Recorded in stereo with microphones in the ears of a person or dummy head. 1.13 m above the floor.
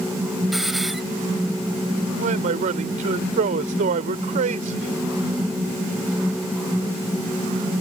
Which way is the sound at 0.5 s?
Centre (ahead or behind).